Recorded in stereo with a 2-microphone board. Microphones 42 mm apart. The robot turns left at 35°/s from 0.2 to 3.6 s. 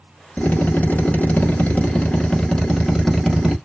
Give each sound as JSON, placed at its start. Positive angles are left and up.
{"t": 0.4, "sound": "a drill", "azimuth_deg": 105, "distance_m": 0.9}